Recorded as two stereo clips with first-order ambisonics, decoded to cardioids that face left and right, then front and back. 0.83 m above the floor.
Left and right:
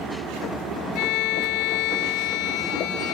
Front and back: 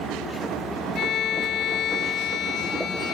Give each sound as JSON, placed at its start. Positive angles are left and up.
{"t": 0.9, "sound": "a violin", "azimuth_deg": 60}